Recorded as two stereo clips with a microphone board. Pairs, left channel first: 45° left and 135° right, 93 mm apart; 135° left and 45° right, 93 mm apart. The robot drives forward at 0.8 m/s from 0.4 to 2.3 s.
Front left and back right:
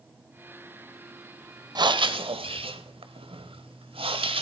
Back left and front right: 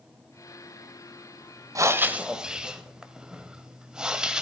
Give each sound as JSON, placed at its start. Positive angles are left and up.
{"t": 1.8, "sound": "breathing", "azimuth_deg": -95, "distance_m": 0.8}